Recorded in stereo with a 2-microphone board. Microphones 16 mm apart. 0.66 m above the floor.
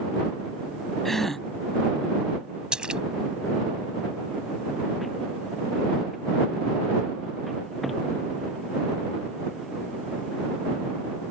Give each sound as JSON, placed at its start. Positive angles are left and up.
{"t": 1.1, "sound": "a gasp", "side_deg": 20}
{"t": 2.7, "sound": "a splash", "side_deg": -60}